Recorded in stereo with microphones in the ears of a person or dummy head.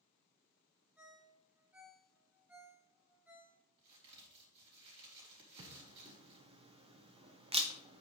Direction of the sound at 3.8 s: 30° right (ahead or behind).